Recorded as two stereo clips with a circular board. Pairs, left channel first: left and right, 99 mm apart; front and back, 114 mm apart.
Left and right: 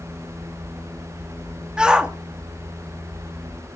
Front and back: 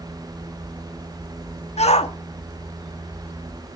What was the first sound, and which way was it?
A shout, 10° right.